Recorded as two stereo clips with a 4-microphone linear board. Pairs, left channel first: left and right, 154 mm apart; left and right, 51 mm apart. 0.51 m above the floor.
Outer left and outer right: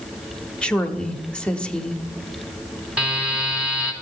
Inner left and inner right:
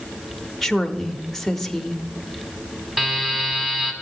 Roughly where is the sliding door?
I don't hear a sliding door.